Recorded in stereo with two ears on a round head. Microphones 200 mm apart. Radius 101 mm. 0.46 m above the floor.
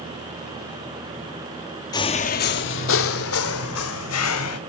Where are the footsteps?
15° left (ahead or behind), 0.8 m; by 4.6 s 80° left, 2.5 m.